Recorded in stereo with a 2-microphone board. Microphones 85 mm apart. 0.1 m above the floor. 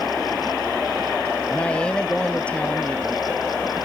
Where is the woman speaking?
15° left (ahead or behind).